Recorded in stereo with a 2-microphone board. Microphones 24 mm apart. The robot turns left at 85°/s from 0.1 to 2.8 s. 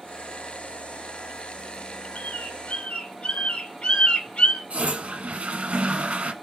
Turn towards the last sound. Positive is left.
turn(degrees=-65)  # may be behind; listen again after turning